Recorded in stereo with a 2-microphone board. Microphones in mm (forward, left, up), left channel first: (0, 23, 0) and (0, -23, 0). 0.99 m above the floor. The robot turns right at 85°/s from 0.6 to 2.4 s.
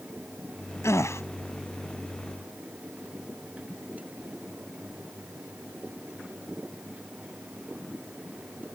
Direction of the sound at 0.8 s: 80° left.